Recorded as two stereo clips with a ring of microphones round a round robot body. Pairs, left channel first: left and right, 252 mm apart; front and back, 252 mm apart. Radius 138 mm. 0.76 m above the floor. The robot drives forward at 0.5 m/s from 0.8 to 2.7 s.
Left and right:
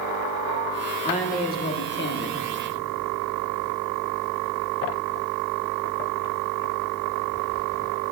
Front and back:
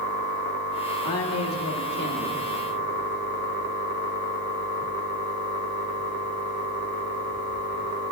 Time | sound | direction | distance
1.0 | a woman speaking | 30° left | 1.2 m